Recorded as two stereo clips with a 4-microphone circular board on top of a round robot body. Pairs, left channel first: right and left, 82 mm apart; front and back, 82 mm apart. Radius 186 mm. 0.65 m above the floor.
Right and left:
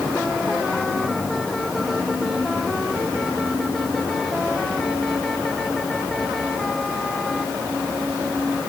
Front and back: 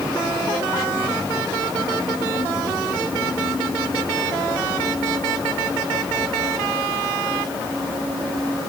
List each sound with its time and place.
Only background noise.